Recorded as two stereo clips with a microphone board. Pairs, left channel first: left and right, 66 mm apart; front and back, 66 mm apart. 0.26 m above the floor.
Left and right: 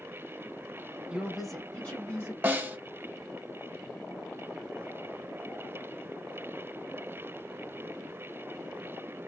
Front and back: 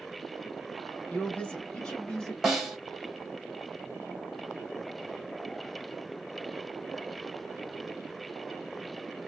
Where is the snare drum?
100° right, 1.2 m.